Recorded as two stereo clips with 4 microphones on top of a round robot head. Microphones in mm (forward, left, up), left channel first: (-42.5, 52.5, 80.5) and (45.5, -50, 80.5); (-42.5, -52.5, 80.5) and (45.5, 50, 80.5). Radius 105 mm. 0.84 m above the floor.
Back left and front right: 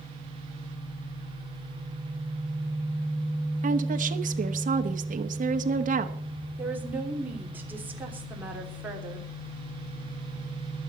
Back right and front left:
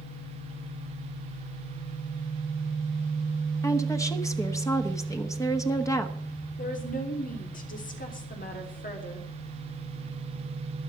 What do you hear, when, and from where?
3.6 s a woman speaking: 65° right, 1.2 m
6.6 s a woman speaking: 125° right, 3.5 m